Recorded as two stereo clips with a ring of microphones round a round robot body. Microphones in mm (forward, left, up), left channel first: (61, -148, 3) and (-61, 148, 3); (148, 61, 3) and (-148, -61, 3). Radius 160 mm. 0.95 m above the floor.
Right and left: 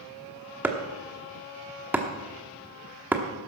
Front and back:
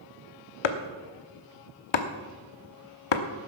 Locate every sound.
0.6 s chopping: 30° left, 1.0 m